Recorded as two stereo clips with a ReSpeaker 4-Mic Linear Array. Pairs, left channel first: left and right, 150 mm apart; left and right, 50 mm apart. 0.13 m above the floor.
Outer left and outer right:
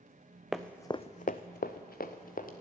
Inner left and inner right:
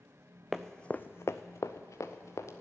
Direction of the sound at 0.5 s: 5° right (ahead or behind).